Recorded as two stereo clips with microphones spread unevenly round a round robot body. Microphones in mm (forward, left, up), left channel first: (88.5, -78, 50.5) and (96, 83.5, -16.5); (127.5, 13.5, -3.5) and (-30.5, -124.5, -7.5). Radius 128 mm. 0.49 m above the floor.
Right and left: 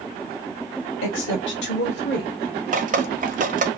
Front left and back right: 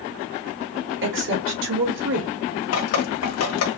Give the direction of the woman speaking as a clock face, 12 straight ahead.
4 o'clock.